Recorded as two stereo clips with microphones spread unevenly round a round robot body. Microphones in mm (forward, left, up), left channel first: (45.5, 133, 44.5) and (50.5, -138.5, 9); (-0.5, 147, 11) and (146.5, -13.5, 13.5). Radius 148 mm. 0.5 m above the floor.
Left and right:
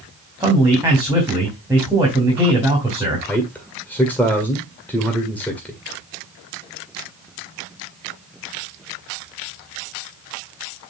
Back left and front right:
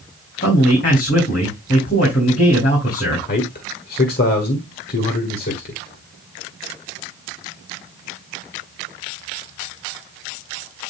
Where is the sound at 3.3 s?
Straight behind, 1.6 m.